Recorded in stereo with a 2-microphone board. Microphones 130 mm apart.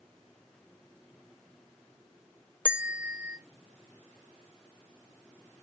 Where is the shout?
No shout in this recording.